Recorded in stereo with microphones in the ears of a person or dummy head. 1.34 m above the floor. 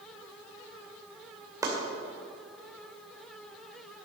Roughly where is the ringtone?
No ringtone in this recording.